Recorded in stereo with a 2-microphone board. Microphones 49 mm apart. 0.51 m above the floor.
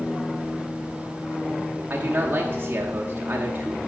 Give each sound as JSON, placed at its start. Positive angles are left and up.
{"t": 1.9, "sound": "a man speaking", "side_deg": -35, "distance_m": 0.9}